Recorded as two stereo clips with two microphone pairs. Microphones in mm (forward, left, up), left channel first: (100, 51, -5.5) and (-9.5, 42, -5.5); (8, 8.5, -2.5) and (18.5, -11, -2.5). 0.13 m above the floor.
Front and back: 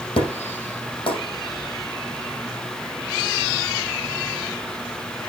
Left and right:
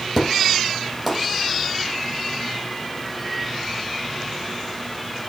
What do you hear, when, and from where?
0.2 s an explosion: 20° left, 5.5 m